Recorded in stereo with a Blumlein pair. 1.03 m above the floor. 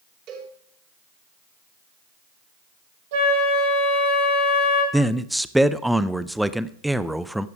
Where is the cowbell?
35° right, 5 m.